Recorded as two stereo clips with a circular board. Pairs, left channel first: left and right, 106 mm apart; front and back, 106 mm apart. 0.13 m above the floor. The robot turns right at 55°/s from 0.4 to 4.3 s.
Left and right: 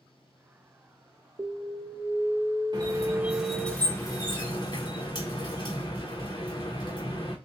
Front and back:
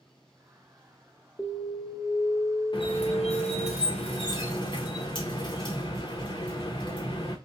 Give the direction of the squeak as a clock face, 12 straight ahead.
2 o'clock.